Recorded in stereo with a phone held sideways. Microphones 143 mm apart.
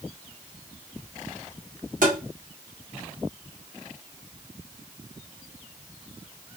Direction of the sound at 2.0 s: 65° right (ahead or behind).